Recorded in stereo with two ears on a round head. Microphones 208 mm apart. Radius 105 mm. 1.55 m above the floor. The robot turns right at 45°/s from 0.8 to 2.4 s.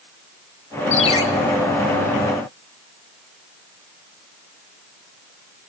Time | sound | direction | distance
0.9 | a ringtone | 35° left (ahead or behind) | 3 m